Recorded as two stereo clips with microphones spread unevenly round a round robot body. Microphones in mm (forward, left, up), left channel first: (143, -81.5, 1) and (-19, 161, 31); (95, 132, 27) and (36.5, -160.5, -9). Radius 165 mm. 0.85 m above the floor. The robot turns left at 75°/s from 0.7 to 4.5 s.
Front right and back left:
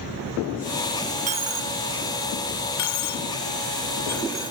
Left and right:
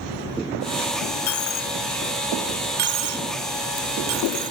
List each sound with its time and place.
1.3 s a dropped coin: 70° left; by 4.5 s 170° right